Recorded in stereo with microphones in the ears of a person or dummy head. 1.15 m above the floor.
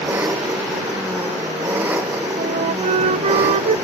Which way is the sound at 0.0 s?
10° right (ahead or behind).